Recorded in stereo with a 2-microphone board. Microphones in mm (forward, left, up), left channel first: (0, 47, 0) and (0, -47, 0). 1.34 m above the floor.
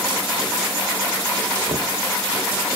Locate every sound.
1.7 s knocking: 80° right